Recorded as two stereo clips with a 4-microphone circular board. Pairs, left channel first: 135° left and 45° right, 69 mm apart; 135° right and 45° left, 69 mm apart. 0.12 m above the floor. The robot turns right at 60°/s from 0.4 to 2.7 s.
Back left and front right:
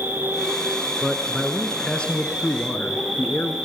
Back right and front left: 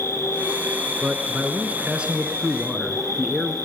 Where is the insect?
100° right, 2.5 m; by 3.6 s 40° left, 2.5 m.